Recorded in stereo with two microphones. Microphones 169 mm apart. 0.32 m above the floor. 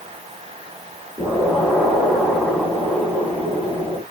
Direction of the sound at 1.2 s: 5° right (ahead or behind).